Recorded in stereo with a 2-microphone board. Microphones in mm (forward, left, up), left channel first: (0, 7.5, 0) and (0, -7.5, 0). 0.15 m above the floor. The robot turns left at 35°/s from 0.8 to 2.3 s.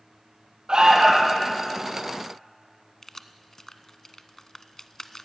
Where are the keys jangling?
25° left (ahead or behind), 0.8 m.